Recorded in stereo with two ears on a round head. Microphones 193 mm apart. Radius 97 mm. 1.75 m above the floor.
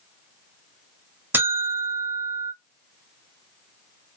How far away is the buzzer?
About 1.1 m.